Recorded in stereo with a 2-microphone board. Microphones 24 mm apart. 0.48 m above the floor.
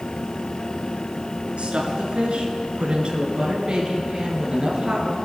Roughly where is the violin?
No violin in this recording.